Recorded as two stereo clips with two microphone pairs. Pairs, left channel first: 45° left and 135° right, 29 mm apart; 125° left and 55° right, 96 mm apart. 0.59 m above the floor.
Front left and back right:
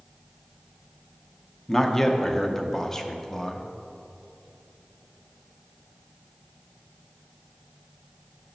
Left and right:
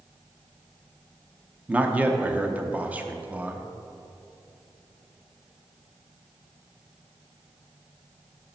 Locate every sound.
1.7 s a man speaking: 5° right, 0.6 m